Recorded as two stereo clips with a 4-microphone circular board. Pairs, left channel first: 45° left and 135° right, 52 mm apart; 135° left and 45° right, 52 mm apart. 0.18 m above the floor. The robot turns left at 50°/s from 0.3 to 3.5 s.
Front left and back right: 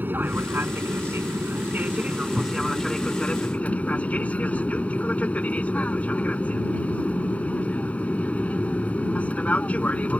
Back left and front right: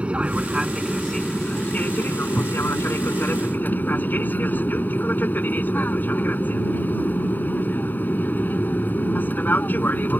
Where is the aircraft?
105° right; by 10.2 s 95° left.